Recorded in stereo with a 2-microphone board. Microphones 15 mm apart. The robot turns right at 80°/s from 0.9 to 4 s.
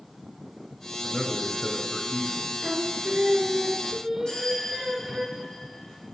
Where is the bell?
65° left (ahead or behind), 4.5 m.